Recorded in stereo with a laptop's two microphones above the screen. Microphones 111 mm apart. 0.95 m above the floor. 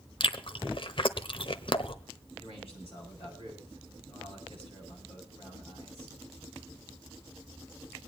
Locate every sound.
0.2 s chewing: 55° left (ahead or behind), 0.9 m
2.4 s a man speaking: 60° left (ahead or behind), 8.5 m